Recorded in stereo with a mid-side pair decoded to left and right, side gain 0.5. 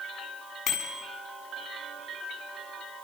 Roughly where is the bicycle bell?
Ahead left.